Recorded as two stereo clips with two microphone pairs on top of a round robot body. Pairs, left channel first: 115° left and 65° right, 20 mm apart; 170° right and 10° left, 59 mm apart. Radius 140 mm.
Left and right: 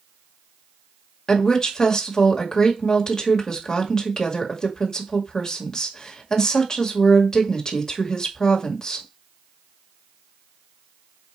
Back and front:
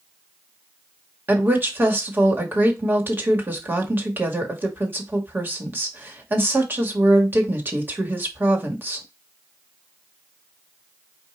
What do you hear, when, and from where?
1.3 s a woman speaking: 55° left, 1.8 m